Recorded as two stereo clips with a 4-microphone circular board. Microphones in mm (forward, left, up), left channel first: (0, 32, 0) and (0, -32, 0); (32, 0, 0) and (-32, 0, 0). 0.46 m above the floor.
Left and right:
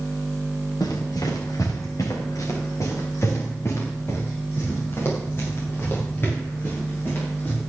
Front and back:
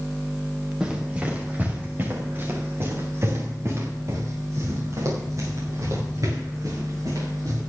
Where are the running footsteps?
105° left, 4.5 m; by 7.6 s 150° left, 12 m.